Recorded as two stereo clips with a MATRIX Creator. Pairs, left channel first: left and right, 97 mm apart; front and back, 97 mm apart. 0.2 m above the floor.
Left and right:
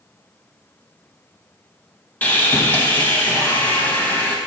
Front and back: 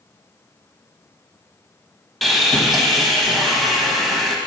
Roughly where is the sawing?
Left.